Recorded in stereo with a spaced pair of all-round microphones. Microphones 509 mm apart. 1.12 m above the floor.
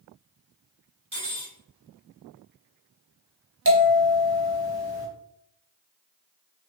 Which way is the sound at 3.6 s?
25° right (ahead or behind).